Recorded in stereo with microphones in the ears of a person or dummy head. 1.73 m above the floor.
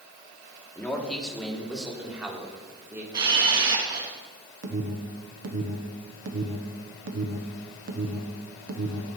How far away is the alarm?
About 1.2 m.